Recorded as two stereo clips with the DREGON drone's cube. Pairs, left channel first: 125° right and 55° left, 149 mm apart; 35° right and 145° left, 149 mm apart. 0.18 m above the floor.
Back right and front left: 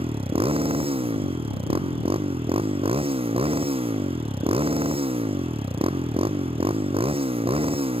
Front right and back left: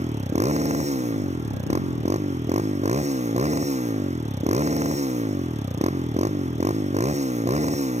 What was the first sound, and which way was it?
A motorcycle, 105° left.